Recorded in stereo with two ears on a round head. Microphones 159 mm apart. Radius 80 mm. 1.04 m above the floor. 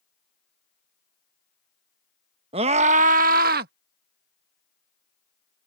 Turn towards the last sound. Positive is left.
turn(degrees=-60)  # may be behind; listen again after turning